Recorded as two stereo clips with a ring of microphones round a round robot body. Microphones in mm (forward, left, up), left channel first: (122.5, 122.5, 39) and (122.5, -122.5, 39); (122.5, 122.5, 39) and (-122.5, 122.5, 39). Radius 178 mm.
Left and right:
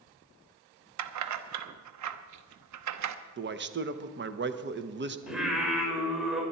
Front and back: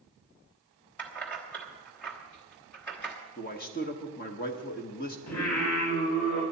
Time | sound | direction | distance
1.0 | keys jangling | 85° right | 0.9 m
3.4 | a man speaking | 55° right | 1.1 m
5.3 | singing | 5° right | 5 m